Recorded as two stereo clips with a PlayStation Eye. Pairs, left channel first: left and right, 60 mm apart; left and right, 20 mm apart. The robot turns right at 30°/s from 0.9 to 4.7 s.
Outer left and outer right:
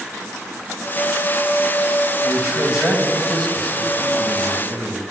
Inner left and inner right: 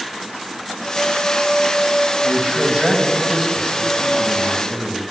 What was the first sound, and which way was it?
A man speaking, 30° right.